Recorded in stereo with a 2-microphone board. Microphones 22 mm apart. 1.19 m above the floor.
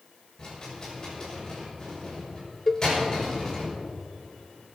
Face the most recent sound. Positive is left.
turn(degrees=15)  # may be behind; listen again after turning